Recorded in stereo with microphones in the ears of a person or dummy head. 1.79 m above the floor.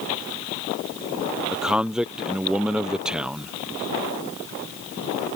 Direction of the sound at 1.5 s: 5° right (ahead or behind).